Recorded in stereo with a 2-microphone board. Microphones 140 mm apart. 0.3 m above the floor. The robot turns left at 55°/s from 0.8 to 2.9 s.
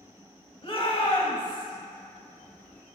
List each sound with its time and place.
0.6 s a shout: 100° left, 1.2 m; by 1.7 s 55° left, 1.2 m